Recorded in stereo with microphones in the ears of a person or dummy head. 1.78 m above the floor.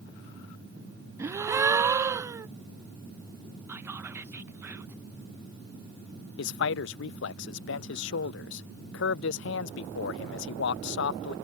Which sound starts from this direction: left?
A man speaking, at 6.4 s.